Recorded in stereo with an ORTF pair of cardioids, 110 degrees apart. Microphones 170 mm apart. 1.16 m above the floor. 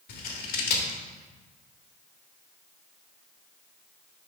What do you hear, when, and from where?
0.1 s scissors: 70° left, 1.3 m